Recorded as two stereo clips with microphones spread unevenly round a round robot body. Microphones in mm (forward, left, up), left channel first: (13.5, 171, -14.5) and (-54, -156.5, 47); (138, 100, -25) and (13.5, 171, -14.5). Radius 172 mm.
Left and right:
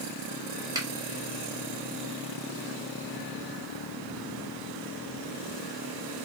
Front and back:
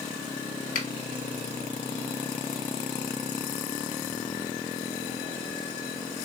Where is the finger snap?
20° right, 1.0 m.